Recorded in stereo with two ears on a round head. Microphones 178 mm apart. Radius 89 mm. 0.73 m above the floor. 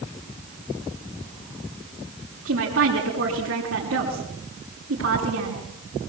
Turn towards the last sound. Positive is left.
turn(degrees=-75)  # may be behind; listen again after turning